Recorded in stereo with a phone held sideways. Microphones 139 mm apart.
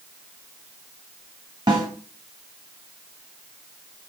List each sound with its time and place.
1.7 s a snare drum: 30° right (ahead or behind), 1.2 m